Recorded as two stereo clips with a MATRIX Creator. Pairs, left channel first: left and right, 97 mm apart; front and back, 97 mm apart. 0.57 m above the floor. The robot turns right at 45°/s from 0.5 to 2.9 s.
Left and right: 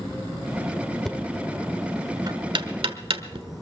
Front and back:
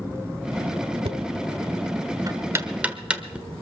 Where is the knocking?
175° left, 1.2 m; by 3.5 s 100° right, 1.2 m.